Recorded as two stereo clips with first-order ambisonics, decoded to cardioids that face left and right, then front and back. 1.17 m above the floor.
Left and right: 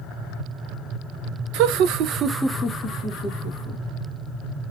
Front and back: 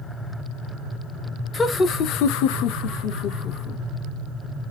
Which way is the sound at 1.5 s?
75° right.